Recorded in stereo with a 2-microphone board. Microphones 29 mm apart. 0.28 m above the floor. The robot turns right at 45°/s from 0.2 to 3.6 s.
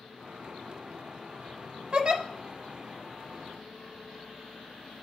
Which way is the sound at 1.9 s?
40° right (ahead or behind).